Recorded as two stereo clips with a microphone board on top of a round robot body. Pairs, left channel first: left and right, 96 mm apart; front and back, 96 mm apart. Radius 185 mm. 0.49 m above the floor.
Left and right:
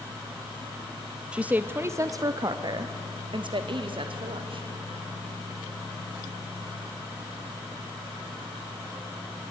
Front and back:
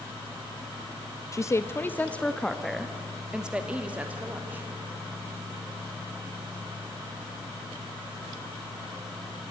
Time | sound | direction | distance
1.3 | a woman speaking | 20° right | 0.9 m